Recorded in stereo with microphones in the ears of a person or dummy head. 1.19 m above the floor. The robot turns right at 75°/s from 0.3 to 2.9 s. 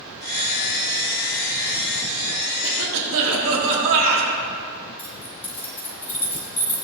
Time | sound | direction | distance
2.6 | a cough | 85° right | 2.5 m
5.0 | keys jangling | 10° left (ahead or behind) | 2.5 m